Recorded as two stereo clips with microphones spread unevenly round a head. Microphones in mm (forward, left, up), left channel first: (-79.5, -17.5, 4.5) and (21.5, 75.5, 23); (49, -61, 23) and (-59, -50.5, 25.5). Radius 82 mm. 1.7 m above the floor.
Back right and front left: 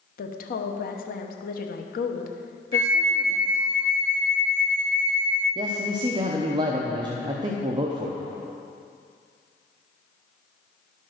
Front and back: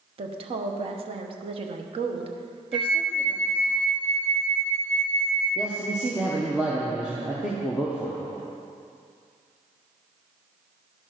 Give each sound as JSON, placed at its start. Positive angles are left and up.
{"t": 0.2, "sound": "a woman speaking", "azimuth_deg": -155, "distance_m": 1.0}
{"t": 2.7, "sound": "a flute", "azimuth_deg": 90, "distance_m": 2.5}
{"t": 5.5, "sound": "a man speaking", "azimuth_deg": 90, "distance_m": 0.8}